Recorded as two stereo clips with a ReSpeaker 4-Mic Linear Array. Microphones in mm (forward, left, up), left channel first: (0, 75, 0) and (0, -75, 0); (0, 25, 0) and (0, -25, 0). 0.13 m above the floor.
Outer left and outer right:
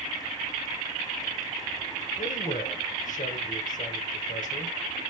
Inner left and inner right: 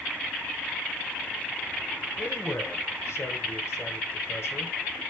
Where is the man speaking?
60° left (ahead or behind), 2.5 m.